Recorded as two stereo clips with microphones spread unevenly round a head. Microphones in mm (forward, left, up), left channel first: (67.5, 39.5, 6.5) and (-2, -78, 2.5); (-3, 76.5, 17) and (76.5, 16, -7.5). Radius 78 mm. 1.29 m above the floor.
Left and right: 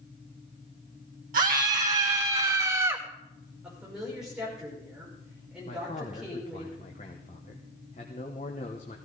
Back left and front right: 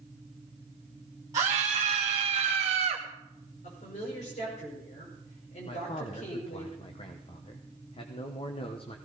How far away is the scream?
About 1.1 m.